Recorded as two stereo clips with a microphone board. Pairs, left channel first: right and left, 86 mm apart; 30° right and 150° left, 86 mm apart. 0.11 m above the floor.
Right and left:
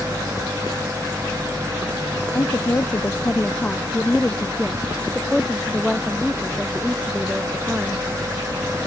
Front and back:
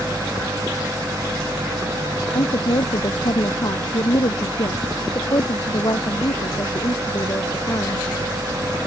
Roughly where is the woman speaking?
Ahead right.